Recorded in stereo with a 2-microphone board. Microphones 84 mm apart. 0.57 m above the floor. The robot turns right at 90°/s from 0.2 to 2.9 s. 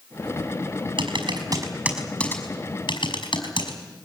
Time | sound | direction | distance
1.0 | typing on a keyboard | 75° right (ahead or behind) | 5.5 m